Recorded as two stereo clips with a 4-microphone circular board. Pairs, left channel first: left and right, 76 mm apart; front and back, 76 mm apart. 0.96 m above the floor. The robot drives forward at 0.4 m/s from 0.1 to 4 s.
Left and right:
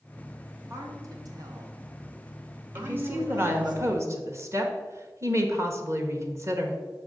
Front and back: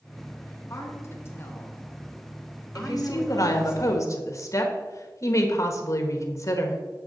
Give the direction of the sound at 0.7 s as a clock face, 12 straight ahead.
2 o'clock.